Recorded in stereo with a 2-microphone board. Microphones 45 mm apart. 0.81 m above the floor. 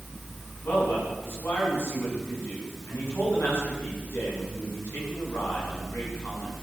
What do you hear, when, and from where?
0.6 s a man speaking: 50° left (ahead or behind), 9 m